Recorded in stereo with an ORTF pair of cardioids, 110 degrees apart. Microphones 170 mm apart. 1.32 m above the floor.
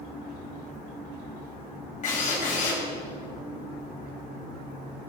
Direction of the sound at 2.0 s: 45° left.